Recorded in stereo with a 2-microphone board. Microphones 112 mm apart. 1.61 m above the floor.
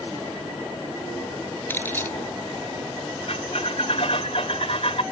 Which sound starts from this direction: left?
A squeak, at 3.3 s.